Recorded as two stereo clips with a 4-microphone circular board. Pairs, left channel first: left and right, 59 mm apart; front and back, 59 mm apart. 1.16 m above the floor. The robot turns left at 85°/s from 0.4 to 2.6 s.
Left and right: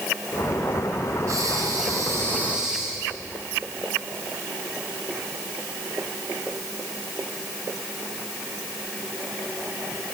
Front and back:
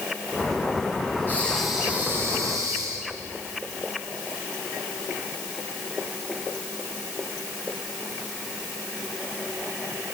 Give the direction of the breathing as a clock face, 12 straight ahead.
2 o'clock.